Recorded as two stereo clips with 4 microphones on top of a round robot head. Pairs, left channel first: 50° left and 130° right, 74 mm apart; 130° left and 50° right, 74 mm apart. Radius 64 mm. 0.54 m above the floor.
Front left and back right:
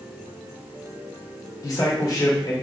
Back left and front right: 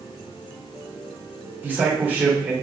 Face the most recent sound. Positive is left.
turn(degrees=15)